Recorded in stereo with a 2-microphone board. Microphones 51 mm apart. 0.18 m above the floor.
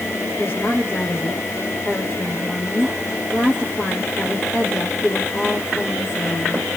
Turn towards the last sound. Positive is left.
turn(degrees=35)  # may be behind; listen again after turning